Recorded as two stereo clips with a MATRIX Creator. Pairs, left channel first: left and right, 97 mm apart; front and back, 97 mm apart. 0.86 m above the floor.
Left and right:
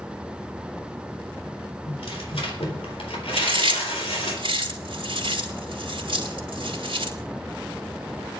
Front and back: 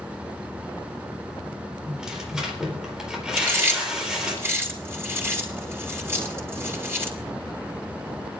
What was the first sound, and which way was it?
Tearing paper, 100° left.